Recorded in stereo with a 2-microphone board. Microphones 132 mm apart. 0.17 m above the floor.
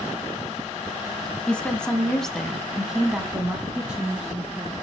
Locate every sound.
1.5 s a woman speaking: 10° left (ahead or behind), 1.8 m; by 4.8 s 10° right (ahead or behind), 2.5 m